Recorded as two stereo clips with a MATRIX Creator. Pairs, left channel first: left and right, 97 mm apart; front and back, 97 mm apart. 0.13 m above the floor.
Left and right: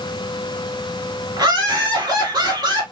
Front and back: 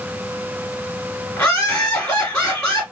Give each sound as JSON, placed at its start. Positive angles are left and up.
{"t": 1.4, "sound": "laughter", "azimuth_deg": -65, "distance_m": 1.9}